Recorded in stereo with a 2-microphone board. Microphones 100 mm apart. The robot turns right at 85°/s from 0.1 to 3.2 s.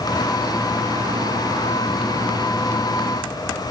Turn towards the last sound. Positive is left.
No sound to turn to.